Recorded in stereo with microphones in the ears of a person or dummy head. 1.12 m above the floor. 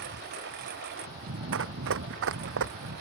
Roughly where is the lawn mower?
Right.